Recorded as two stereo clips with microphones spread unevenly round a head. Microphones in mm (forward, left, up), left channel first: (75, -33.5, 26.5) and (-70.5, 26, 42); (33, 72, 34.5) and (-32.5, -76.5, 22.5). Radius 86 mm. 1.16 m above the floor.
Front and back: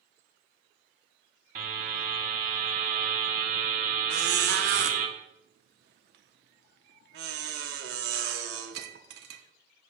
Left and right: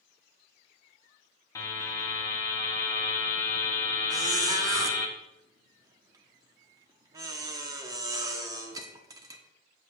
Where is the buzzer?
130° left, 1.6 m.